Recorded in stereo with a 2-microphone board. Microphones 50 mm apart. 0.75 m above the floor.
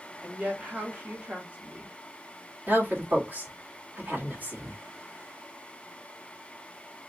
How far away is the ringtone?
No ringtone in this recording.